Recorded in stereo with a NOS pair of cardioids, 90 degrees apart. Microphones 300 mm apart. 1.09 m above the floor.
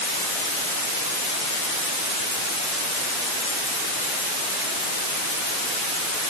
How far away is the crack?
No crack in this recording.